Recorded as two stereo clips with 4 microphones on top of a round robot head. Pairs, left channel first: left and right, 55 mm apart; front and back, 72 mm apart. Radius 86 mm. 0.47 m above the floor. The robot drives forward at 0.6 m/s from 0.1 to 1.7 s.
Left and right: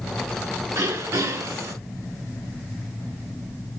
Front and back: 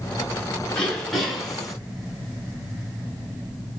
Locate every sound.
0.7 s throat clearing: 80° right, 2.5 m; by 1.8 s 90° right, 2.5 m